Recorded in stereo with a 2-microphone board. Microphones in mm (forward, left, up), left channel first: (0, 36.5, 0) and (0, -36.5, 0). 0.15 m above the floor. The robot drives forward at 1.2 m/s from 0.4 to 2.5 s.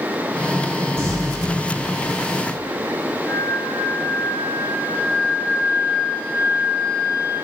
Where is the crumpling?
35° right (ahead or behind), 4.5 m.